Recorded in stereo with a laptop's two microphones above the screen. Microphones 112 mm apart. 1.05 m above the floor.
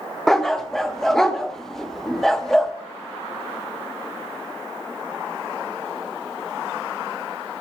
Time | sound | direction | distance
0.3 | a dog barking | 5° left (ahead or behind) | 0.5 m